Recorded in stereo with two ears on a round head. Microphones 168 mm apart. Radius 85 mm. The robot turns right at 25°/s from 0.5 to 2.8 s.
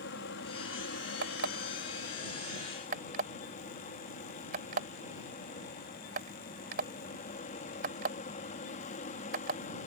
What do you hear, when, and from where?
0.0 s an aircraft: 80° left; by 9.9 s 135° left
1.2 s an alarm clock: 65° right (ahead or behind); by 9.6 s 45° right (ahead or behind)